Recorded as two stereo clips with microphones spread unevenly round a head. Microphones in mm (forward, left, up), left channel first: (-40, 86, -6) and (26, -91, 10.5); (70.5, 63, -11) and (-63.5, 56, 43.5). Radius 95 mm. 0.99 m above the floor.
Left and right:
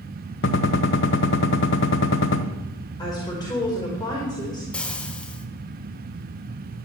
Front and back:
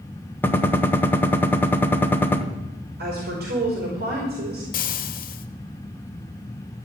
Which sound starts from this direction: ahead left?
Frying, at 4.7 s.